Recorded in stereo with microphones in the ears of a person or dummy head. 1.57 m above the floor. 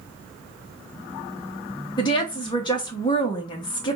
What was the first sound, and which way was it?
A woman speaking, 25° left (ahead or behind).